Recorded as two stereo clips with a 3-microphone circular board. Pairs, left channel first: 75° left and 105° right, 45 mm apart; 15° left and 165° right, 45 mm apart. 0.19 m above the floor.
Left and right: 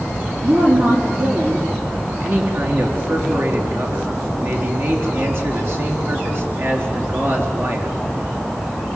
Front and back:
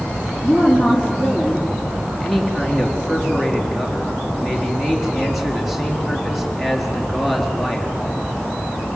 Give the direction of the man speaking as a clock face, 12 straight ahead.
3 o'clock.